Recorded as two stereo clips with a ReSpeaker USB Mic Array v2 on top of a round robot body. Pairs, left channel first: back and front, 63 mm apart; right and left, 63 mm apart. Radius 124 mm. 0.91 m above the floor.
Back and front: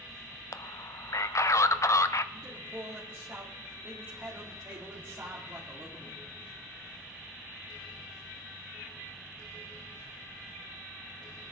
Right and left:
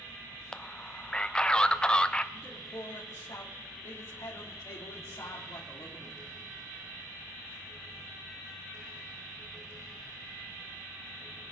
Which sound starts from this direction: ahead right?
A man speaking, at 2.3 s.